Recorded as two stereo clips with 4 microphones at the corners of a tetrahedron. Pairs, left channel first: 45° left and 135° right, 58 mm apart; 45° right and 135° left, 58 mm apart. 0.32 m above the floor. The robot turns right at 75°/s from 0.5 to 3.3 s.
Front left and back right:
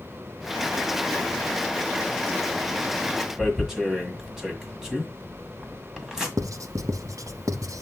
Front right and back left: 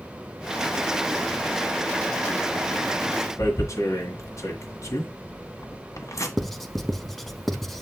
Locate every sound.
3.4 s tearing paper: 55° right, 1.8 m
6.4 s writing: 130° right, 0.7 m